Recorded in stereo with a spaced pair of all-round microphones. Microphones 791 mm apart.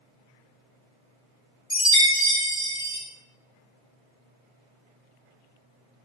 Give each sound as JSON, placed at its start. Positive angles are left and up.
{"t": 1.7, "sound": "a chime", "side_deg": 5, "distance_m": 1.1}